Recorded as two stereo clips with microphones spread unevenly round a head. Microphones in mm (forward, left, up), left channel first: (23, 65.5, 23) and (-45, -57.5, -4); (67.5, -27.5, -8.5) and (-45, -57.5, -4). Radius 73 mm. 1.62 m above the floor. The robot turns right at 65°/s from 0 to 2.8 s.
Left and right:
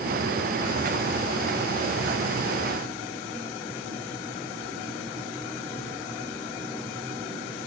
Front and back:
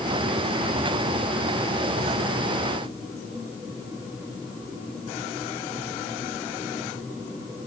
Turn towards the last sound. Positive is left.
No sound to turn to.